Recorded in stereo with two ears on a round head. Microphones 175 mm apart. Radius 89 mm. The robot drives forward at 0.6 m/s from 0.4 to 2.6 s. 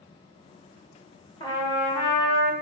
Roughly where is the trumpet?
Left.